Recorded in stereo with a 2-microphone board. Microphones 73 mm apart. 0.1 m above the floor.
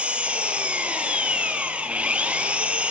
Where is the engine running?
15° right (ahead or behind), 1.1 m.